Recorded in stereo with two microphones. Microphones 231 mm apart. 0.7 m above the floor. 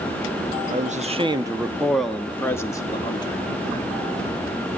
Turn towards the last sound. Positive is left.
turn(degrees=20)  # may be behind; listen again after turning